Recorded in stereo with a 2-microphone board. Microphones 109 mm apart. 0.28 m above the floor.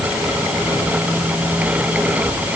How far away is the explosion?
No explosion in this recording.